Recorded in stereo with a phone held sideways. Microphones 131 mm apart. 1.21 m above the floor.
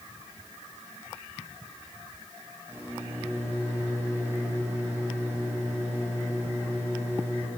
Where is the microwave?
20° right (ahead or behind), 6 m.